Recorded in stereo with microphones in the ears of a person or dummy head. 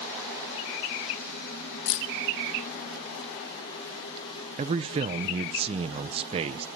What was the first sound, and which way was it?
Keys jangling, 75° left (ahead or behind).